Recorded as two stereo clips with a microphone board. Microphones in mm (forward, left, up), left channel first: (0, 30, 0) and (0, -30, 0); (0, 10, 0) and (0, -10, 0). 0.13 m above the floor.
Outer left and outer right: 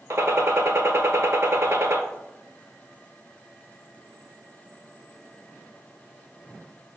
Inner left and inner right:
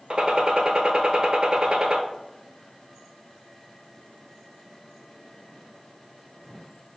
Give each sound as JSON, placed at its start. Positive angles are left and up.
{"t": 0.1, "sound": "a gunshot", "side_deg": -50, "distance_m": 0.5}